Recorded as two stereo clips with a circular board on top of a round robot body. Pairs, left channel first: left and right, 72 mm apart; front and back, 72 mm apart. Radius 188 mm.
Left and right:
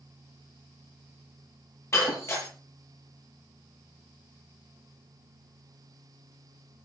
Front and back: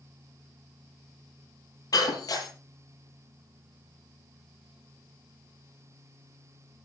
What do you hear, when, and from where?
1.9 s breaking glass: 35° left, 9.5 m